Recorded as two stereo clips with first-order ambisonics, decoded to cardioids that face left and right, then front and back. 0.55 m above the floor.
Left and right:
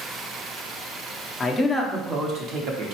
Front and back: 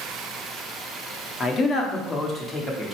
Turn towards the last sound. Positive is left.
turn(degrees=-80)